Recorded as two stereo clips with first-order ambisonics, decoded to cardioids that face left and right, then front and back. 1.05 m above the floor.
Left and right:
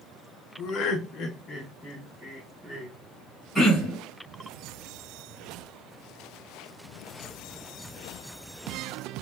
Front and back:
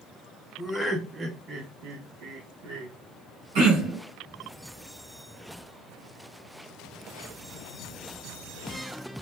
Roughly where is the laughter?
Left.